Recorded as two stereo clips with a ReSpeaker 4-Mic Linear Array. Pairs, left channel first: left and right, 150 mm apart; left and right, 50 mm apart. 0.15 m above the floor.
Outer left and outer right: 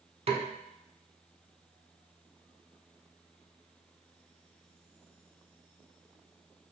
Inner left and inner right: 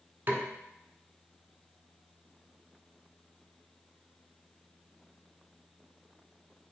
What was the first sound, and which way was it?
A snare drum, 45° right (ahead or behind).